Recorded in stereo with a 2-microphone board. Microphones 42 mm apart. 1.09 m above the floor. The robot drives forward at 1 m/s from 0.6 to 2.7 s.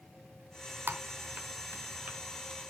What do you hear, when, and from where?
0.9 s typing on a keyboard: 65° right (ahead or behind), 1.4 m; by 2.2 s 45° right (ahead or behind), 1.8 m